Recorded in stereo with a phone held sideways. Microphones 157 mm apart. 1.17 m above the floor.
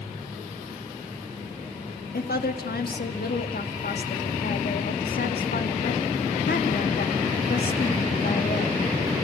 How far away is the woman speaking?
About 2 m.